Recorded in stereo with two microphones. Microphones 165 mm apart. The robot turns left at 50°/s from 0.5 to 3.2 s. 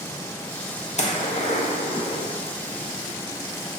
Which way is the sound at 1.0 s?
45° left (ahead or behind).